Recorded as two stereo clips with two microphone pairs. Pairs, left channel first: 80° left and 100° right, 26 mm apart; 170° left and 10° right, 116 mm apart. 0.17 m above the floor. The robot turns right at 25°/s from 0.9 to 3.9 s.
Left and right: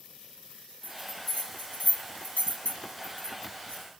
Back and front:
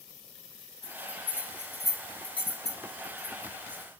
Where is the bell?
55° left, 1.2 m; by 3.8 s 130° left, 1.2 m.